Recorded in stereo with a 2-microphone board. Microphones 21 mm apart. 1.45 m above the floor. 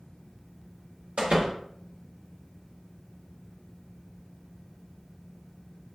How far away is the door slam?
About 1.1 m.